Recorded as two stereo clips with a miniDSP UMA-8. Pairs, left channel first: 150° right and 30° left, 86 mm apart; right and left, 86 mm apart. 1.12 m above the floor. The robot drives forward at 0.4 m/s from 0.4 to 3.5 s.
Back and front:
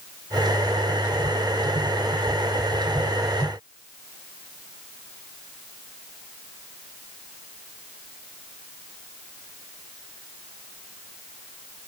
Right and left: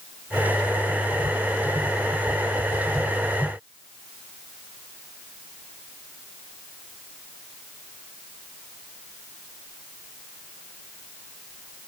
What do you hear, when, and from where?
Only background noise.